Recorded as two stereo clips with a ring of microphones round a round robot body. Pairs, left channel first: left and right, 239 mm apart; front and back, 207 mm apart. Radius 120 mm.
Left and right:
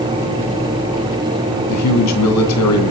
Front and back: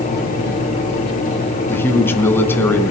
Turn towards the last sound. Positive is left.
turn(degrees=80)